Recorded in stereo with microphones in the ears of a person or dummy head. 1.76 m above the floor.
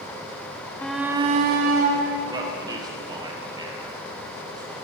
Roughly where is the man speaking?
Right.